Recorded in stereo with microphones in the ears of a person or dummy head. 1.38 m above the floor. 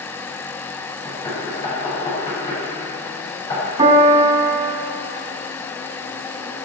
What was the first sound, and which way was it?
Knocking, 25° left (ahead or behind).